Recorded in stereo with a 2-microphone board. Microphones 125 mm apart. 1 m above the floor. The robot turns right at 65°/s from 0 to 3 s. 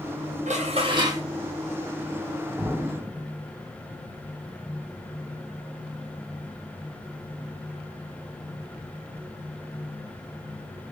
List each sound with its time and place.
0.5 s dishes clattering: 70° right, 0.9 m; by 1.2 s 20° right, 0.9 m
2.6 s an explosion: 10° right (ahead or behind), 1.8 m; by 3.2 s 20° left (ahead or behind), 1.8 m